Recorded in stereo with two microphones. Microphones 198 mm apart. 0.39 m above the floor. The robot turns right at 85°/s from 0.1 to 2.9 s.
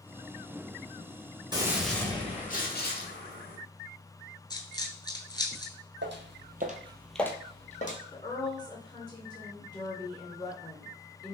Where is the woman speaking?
20° left (ahead or behind), 0.8 m.